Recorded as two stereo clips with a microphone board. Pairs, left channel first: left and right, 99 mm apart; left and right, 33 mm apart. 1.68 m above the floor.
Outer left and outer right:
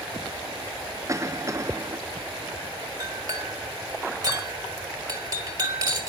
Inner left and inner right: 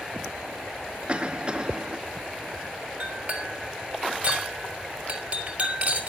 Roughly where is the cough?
Right.